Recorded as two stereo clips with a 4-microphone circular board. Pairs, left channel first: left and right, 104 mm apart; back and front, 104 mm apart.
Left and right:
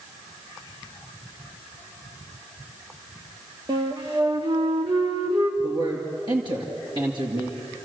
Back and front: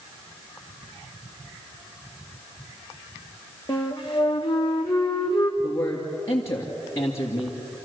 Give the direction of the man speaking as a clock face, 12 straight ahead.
4 o'clock.